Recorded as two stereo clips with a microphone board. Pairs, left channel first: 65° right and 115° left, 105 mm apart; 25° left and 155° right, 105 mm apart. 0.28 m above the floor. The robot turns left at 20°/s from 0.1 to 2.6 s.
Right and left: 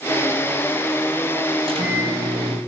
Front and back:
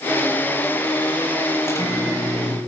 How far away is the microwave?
About 7.5 m.